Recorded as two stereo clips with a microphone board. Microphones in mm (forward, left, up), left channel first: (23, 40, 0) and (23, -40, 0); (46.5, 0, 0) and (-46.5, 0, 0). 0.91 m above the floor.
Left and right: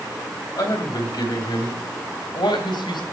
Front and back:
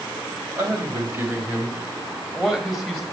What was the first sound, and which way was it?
A man speaking, 125° left.